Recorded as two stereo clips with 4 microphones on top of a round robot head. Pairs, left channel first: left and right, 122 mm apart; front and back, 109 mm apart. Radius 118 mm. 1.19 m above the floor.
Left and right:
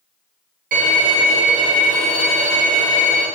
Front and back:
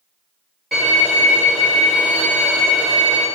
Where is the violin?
90° right, 1.3 m.